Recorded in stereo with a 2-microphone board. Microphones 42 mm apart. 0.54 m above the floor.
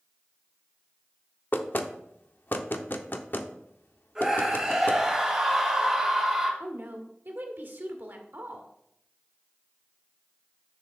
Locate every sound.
1.5 s knocking: 50° left (ahead or behind), 0.6 m
4.2 s a scream: 10° right (ahead or behind), 2.5 m
6.6 s a woman speaking: 55° right (ahead or behind), 1.3 m